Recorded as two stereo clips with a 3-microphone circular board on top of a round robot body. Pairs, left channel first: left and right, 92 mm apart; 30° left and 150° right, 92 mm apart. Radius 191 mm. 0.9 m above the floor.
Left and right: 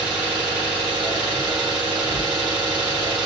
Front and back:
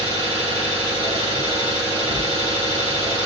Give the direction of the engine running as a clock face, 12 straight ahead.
4 o'clock.